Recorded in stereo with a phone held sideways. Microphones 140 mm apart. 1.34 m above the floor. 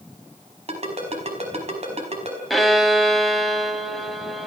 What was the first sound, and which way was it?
A ringtone, 50° right (ahead or behind).